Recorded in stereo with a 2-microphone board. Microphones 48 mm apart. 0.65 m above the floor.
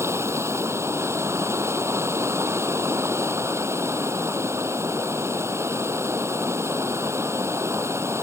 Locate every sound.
0.0 s running water: 75° right (ahead or behind)